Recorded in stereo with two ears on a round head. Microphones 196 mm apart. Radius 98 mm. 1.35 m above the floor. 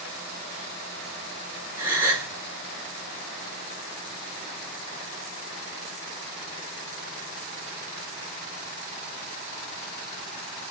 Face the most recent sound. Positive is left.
turn(degrees=-10)  # may be behind; listen again after turning